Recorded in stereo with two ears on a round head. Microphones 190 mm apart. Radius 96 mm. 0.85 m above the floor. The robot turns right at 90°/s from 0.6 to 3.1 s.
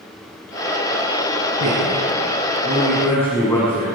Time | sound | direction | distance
1.6 | a man speaking | 55° right (ahead or behind) | 7 m